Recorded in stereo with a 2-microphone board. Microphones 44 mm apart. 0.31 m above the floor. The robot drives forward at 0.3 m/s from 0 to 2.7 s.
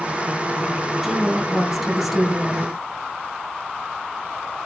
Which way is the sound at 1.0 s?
5° right (ahead or behind).